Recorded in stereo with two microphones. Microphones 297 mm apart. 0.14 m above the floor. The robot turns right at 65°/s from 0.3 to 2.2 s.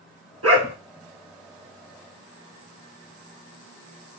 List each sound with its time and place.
0.4 s a dog barking: 55° right (ahead or behind), 1.0 m; by 0.8 s 35° right (ahead or behind), 1.0 m